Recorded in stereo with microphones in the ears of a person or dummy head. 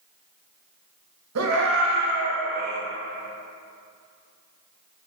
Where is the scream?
75° right (ahead or behind), 2.0 m; by 2.8 s 70° right (ahead or behind), 3 m.